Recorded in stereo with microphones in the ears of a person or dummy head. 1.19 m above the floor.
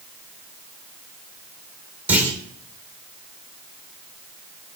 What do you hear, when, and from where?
2.1 s a clunk: 5° right (ahead or behind), 5 m